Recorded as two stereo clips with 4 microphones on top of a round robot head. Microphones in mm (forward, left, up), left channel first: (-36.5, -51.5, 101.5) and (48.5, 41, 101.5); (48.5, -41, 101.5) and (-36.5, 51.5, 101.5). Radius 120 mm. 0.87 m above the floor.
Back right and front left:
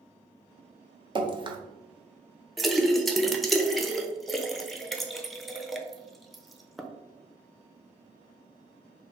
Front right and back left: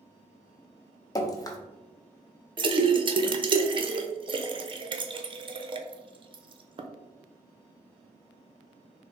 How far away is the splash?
About 0.6 m.